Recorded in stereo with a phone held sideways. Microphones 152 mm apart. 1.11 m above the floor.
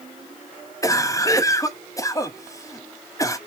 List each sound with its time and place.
0.8 s a cough: 20° left (ahead or behind), 0.7 m